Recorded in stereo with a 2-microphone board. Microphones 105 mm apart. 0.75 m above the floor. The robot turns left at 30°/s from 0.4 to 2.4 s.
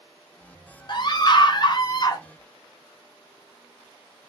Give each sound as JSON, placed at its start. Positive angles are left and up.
{"t": 0.9, "sound": "a scream", "azimuth_deg": 100, "distance_m": 0.5}